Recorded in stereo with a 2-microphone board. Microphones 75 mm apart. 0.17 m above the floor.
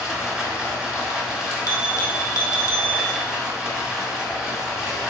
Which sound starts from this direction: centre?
Running water, at 0.0 s.